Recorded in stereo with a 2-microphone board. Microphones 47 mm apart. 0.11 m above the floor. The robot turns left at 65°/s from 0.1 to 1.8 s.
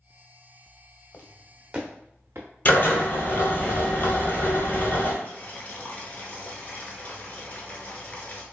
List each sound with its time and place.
1.1 s footsteps: 45° left (ahead or behind), 0.7 m; by 2.5 s 65° right (ahead or behind), 0.6 m
2.6 s a drill: 45° left (ahead or behind), 0.9 m
5.2 s boiling: 35° left (ahead or behind), 0.6 m